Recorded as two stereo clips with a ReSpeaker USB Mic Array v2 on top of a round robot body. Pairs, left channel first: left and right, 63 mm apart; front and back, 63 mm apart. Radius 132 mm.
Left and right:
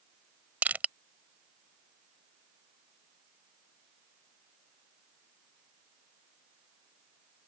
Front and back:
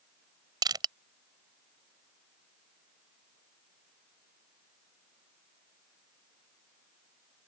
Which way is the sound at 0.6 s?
160° right.